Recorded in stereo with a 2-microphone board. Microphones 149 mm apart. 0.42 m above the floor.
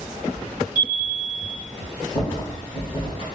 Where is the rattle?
35° left (ahead or behind), 1.1 m.